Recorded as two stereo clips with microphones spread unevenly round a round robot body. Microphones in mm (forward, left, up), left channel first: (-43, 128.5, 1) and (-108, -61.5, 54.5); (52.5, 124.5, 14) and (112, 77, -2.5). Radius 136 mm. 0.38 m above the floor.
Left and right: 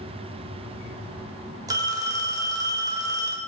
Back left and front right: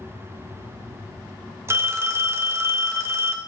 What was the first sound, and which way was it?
A phone ringing, 25° right.